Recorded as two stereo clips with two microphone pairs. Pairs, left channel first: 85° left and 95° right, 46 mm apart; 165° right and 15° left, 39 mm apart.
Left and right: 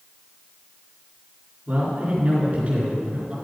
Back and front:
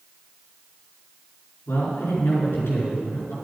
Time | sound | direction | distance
1.7 | a man speaking | 155° right | 4 m